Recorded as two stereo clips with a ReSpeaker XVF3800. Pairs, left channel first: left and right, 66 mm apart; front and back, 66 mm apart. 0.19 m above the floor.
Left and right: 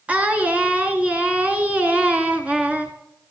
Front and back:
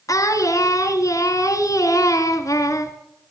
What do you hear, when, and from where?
0.1 s singing: 20° right, 1.3 m